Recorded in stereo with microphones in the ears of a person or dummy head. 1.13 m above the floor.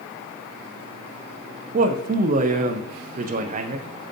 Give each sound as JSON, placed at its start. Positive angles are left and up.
{"t": 1.7, "sound": "a man speaking", "side_deg": -40, "distance_m": 0.7}